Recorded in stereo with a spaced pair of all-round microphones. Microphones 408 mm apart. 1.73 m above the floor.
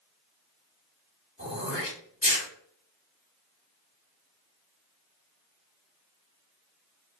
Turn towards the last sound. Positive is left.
turn(degrees=30)  # may be behind; listen again after turning